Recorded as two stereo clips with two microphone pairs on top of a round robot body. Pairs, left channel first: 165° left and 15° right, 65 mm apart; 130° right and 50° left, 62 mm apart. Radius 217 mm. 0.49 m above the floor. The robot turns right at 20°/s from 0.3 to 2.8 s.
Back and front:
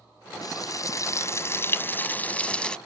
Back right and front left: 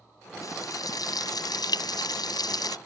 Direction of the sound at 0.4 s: 165° right.